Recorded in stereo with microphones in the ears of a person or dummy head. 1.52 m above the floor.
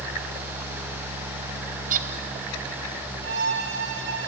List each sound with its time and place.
1.9 s a bird: 40° right (ahead or behind), 0.6 m
3.2 s a violin: 75° right (ahead or behind), 2.5 m